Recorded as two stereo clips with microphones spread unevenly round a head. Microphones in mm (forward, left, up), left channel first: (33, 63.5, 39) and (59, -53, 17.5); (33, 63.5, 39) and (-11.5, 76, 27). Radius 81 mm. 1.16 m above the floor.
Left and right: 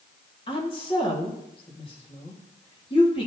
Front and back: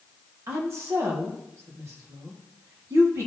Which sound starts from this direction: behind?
A woman speaking, at 0.5 s.